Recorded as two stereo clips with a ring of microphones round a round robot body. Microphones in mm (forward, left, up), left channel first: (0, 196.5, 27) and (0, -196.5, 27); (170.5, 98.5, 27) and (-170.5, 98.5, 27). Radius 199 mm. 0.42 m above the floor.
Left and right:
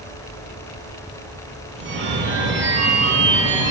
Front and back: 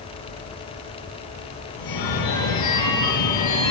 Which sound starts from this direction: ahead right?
A phone ringing, at 1.8 s.